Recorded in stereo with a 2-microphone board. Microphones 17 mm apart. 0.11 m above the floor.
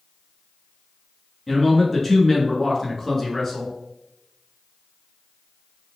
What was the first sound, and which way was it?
A man speaking, 15° left (ahead or behind).